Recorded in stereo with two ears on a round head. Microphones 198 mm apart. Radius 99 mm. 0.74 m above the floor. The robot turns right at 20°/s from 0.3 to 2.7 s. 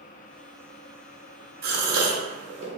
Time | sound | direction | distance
1.6 | a gasp | 45° right (ahead or behind) | 0.7 m